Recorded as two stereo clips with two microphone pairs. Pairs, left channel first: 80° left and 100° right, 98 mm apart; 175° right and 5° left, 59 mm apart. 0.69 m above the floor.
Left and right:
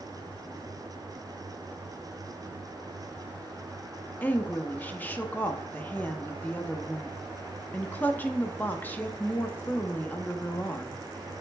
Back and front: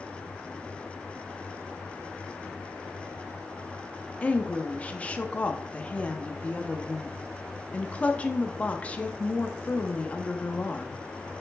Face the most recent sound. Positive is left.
turn(degrees=135)